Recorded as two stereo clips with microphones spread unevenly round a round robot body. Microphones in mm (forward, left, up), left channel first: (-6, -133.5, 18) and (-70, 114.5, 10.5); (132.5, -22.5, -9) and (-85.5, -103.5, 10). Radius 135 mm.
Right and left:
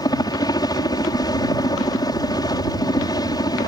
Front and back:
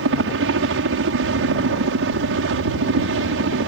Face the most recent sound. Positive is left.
turn(degrees=-150)